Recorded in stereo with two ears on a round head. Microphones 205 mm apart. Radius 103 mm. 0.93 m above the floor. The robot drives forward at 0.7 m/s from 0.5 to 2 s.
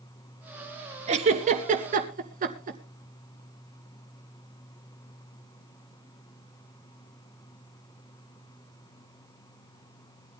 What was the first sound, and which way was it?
A giggle, 30° right (ahead or behind).